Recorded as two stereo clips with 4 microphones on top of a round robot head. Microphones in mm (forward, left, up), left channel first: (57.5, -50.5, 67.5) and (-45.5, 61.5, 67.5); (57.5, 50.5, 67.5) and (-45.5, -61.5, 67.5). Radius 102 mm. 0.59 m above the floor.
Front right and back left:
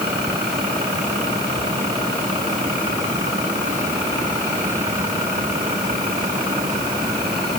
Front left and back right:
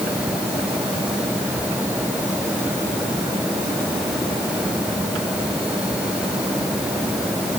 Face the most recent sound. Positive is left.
No sound to turn to.